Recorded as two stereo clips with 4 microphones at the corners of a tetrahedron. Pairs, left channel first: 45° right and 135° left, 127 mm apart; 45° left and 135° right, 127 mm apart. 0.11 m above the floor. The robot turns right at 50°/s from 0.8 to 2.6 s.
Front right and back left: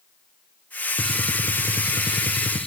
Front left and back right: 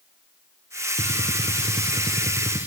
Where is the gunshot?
140° right, 0.6 m; by 2.7 s 60° right, 0.6 m.